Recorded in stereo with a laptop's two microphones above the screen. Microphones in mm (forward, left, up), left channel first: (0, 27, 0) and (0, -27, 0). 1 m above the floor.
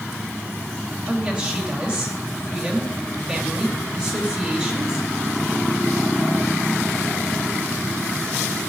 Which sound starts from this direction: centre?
A woman speaking, at 1.1 s.